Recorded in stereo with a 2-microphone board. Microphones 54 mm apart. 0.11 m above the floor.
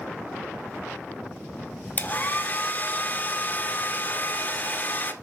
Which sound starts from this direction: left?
A hair dryer, at 2.0 s.